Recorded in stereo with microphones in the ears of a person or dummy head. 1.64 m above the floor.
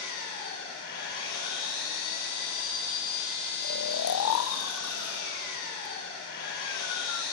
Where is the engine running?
60° left (ahead or behind), 8 m.